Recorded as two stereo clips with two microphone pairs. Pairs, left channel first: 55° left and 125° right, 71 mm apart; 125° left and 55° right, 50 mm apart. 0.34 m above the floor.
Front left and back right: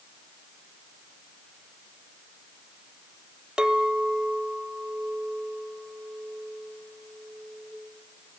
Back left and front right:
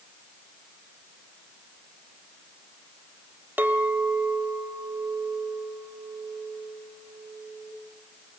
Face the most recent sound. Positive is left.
turn(degrees=-55)